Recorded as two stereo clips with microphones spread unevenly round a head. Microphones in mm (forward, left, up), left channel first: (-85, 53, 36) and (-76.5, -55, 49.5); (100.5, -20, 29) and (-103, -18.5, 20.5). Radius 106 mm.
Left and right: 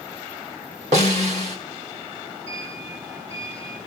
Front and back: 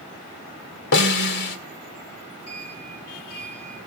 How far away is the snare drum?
About 1.9 m.